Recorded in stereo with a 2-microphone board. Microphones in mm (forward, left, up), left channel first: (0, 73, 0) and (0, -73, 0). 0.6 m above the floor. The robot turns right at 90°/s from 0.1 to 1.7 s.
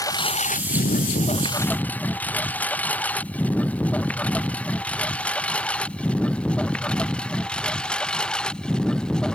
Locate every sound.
0.0 s a lawn mower: 25° left (ahead or behind); by 9.3 s 5° left (ahead or behind)